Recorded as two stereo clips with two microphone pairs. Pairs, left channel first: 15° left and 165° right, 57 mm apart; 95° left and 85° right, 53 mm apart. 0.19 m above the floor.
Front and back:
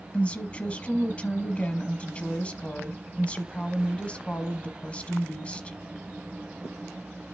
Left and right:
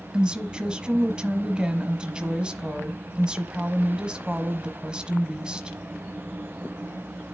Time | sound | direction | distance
0.1 | a woman speaking | 25° right | 1.1 m